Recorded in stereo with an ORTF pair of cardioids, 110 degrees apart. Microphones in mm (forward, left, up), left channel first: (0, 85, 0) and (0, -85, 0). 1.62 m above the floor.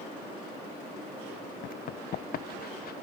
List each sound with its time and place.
1.6 s running footsteps: 55° left; by 2.9 s 60° left